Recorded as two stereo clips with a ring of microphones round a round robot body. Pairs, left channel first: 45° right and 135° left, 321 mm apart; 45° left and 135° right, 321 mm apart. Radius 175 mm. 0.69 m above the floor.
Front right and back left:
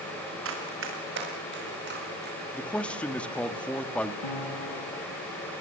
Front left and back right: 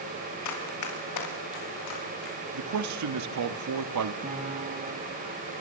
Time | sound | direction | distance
0.5 | running footsteps | 85° left | 6 m
2.5 | a man speaking | 130° right | 1.5 m
4.2 | a piano | 65° right | 6 m